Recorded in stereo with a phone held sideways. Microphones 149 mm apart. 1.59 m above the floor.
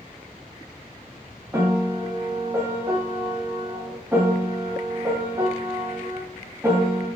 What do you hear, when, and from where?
1.5 s a piano: 20° right (ahead or behind), 1.0 m